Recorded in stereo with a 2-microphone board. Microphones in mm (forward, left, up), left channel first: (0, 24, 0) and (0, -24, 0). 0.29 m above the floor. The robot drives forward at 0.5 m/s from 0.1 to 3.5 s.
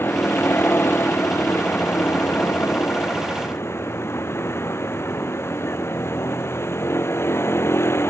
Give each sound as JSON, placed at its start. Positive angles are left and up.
{"t": 0.0, "sound": "a vehicle", "side_deg": 50}